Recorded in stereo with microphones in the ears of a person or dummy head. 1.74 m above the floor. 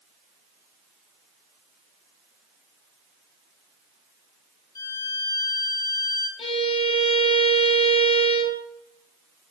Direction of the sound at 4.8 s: 20° left (ahead or behind).